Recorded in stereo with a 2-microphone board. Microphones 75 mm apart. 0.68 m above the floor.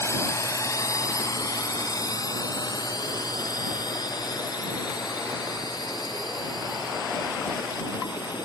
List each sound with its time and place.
0.0 s a drone: 40° left (ahead or behind); by 8.5 s 75° left (ahead or behind)